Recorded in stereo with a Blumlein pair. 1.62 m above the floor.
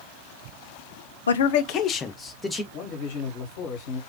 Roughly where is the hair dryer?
I don't hear a hair dryer.